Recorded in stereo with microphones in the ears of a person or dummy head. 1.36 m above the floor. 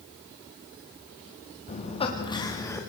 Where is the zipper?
No zipper in this recording.